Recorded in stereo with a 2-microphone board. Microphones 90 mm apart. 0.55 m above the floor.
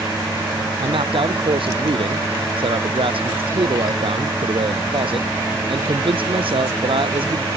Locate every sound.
0.8 s a man speaking: 75° right (ahead or behind)